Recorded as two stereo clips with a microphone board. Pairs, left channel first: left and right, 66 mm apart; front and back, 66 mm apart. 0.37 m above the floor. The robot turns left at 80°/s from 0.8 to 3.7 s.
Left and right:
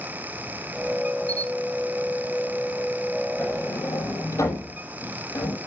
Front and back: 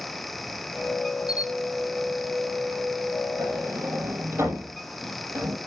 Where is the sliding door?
150° left, 6 m; by 5.6 s 125° left, 6 m.